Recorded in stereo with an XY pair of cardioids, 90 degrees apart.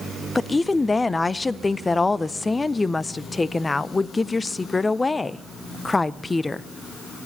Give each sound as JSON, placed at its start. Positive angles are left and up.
{"t": 0.3, "sound": "a woman speaking", "azimuth_deg": 25, "distance_m": 0.5}